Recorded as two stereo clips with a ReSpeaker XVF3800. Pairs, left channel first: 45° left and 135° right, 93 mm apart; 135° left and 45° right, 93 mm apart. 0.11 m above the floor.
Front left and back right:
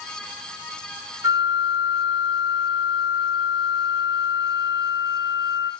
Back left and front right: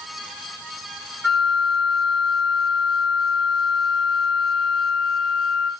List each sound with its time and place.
1.2 s a flute: 135° right, 1.2 m